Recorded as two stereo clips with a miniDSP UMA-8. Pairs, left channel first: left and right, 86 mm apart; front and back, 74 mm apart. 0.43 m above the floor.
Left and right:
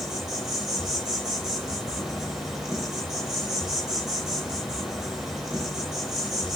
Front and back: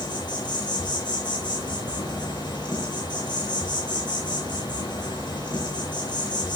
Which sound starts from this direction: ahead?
An insect, at 0.0 s.